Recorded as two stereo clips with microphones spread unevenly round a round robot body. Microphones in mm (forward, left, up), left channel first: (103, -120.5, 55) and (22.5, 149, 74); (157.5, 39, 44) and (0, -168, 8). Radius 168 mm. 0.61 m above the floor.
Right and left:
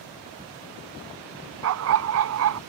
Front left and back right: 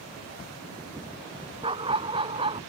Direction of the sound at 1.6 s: 155° left.